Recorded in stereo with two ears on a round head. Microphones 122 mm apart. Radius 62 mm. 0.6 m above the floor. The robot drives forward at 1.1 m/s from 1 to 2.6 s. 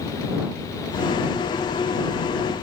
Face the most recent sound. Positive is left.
No sound to turn to.